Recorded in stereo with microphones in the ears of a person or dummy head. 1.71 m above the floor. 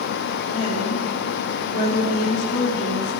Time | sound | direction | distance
0.5 | a woman speaking | 35° left (ahead or behind) | 3.5 m